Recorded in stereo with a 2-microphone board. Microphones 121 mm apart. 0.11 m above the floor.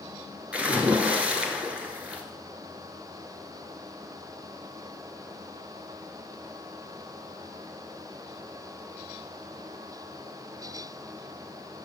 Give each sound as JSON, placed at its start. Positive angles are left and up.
{"t": 0.5, "sound": "a splash", "side_deg": -10, "distance_m": 1.3}